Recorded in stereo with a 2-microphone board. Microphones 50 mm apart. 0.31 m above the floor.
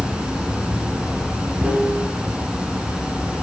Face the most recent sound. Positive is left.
turn(degrees=-20)  # may be behind; listen again after turning